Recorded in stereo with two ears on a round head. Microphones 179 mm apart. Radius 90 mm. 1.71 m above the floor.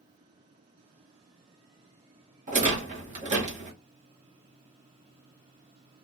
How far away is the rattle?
About 1.1 m.